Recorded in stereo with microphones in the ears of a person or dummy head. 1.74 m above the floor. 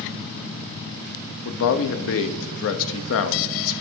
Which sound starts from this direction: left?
A man speaking, at 1.4 s.